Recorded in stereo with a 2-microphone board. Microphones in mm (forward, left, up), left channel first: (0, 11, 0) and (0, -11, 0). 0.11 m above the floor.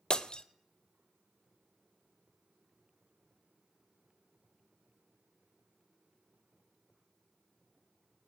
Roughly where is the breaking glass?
Left.